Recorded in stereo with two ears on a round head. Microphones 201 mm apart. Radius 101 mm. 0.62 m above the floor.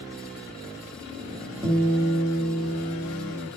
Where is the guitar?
20° right (ahead or behind), 1.4 m.